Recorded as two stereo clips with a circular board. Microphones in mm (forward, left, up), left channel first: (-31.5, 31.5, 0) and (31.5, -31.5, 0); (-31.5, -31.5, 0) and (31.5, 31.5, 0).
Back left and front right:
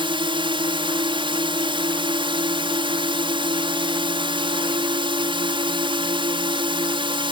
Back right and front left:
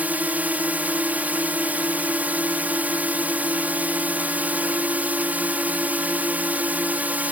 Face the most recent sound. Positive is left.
turn(degrees=-25)